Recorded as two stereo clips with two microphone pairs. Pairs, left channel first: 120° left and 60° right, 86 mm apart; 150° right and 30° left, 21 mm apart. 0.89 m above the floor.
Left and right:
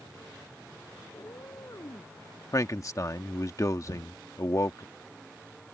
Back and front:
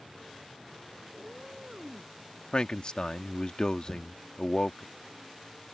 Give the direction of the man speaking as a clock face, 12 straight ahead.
6 o'clock.